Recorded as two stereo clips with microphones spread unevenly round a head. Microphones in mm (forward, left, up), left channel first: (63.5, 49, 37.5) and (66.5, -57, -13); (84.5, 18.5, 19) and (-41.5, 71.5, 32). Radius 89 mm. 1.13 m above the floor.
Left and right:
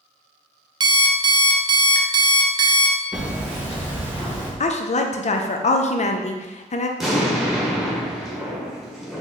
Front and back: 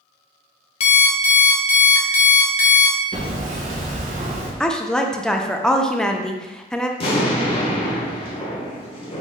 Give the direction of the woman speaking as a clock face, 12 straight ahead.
10 o'clock.